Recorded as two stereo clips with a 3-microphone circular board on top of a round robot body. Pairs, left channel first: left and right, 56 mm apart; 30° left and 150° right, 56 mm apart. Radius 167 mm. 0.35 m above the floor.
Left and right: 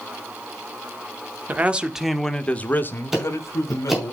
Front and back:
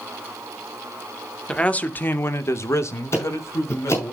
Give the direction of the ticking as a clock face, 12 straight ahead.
12 o'clock.